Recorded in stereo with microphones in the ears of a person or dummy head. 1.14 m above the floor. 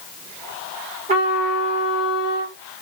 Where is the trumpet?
35° right (ahead or behind), 1.8 m.